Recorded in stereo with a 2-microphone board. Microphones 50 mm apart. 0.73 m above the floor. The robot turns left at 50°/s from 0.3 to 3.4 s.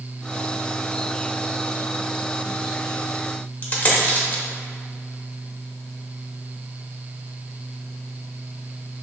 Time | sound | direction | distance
3.6 | a dropped coin | 40° left (ahead or behind) | 0.9 m